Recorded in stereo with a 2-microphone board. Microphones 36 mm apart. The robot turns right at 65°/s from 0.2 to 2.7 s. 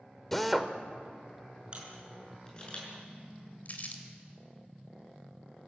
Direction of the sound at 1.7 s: 25° right (ahead or behind).